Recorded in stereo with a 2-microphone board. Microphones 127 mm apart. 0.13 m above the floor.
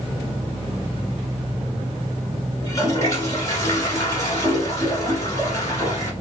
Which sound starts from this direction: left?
A toilet flushing, at 2.6 s.